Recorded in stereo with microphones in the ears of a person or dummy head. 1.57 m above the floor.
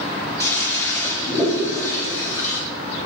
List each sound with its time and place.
0.4 s a toilet flushing: 10° left (ahead or behind), 1.0 m